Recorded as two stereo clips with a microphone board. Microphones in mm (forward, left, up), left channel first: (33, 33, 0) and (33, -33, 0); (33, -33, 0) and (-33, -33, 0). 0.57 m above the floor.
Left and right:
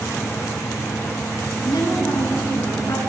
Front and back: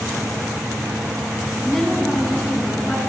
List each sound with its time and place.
1.6 s a woman speaking: 85° left, 4.5 m; by 3.0 s 80° left, 6.5 m